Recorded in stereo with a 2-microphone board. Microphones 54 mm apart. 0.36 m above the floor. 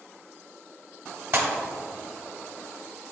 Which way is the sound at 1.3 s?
45° right (ahead or behind).